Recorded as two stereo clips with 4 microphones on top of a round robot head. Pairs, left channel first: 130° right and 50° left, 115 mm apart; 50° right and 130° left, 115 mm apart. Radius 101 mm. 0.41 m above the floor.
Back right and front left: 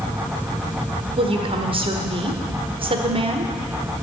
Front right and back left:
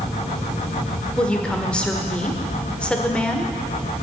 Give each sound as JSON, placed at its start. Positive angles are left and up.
{"t": 1.2, "sound": "a woman speaking", "azimuth_deg": 30, "distance_m": 1.4}